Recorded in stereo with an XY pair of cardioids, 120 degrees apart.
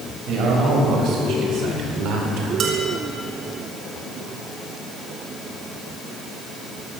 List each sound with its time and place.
0.3 s a man speaking: 70° right, 7 m; by 2.5 s 75° right, 4 m
2.6 s dishes clattering: 60° right, 4.5 m